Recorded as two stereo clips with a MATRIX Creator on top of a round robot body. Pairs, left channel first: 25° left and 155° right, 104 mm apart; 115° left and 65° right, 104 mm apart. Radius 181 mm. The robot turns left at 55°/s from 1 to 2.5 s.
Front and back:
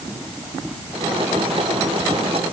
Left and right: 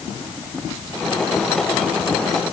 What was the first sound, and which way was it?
Only background noise.